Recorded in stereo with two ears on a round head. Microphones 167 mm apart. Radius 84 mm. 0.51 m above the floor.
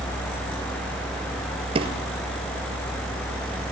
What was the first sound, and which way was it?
A drawer, 30° right (ahead or behind).